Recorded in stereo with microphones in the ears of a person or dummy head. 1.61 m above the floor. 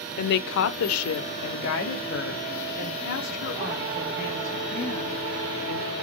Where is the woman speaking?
50° left (ahead or behind), 0.6 m; by 5.9 s 45° left (ahead or behind), 3 m.